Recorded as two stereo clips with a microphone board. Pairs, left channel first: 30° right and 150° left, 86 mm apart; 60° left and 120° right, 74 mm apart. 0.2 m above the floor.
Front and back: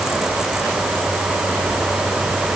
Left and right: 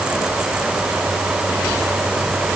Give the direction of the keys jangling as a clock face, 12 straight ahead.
No keys jangling in this recording.